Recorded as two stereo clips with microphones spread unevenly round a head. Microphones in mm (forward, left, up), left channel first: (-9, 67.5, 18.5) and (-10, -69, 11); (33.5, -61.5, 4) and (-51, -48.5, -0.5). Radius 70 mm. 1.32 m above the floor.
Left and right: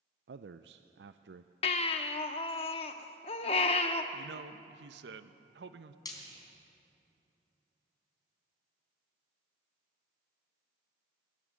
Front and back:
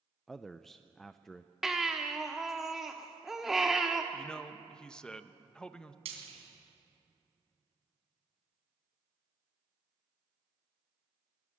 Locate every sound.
0.3 s a man speaking: 95° right, 0.6 m
1.6 s a baby crying: 80° left, 1.0 m
4.1 s a man speaking: 90° right, 1.0 m
6.0 s frying: 150° left, 3.5 m